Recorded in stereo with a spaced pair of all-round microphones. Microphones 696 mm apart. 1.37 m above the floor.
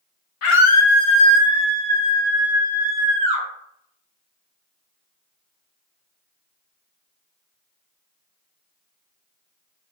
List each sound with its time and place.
0.4 s a scream: 50° left (ahead or behind), 0.7 m; by 3.5 s 75° right (ahead or behind), 1.9 m